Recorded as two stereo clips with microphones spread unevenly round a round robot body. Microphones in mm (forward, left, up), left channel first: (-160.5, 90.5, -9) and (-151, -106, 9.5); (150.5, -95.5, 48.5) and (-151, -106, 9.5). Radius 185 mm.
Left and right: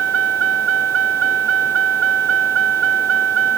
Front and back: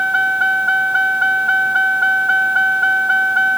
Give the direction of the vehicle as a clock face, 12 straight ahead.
3 o'clock.